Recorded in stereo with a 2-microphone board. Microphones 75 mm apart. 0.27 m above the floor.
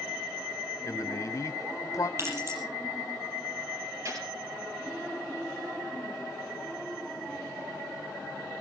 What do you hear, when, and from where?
0.8 s a man speaking: 45° left (ahead or behind), 1.4 m
2.2 s keys jangling: 40° right (ahead or behind), 6 m
4.0 s a gunshot: 45° right (ahead or behind), 4 m